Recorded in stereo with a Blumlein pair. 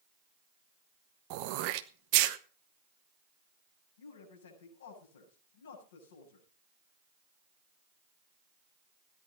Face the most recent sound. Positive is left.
turn(degrees=65)